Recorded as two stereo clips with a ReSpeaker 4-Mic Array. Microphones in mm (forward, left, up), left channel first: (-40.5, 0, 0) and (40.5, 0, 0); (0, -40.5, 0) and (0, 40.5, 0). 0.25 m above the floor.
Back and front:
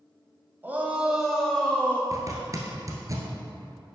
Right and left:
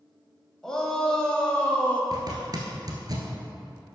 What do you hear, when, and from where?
0.6 s a shout: 20° right, 1.2 m; by 2.0 s 145° right, 1.2 m
2.1 s a zipper: 50° left, 1.6 m